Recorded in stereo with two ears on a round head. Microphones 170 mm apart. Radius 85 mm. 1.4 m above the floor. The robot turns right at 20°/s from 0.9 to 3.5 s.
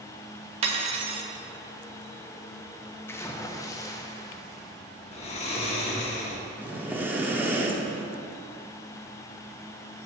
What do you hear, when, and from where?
0.6 s cutlery clinking: 35° right (ahead or behind), 0.7 m; by 1.3 s 30° right (ahead or behind), 0.7 m
3.1 s a splash: 15° left (ahead or behind), 0.5 m; by 4.8 s 20° left (ahead or behind), 0.5 m
5.1 s snoring: 35° left (ahead or behind), 0.8 m
6.6 s breathing: 10° right (ahead or behind), 0.7 m